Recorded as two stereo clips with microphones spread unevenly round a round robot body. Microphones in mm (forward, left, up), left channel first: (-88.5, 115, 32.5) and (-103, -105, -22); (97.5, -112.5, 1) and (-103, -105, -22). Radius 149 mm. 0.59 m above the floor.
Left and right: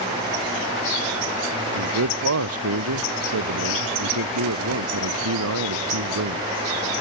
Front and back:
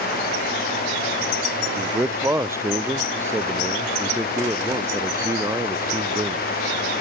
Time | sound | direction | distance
1.8 | a man speaking | 105° right | ?